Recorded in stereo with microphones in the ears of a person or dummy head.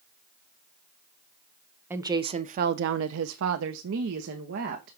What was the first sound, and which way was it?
A woman speaking, 5° right (ahead or behind).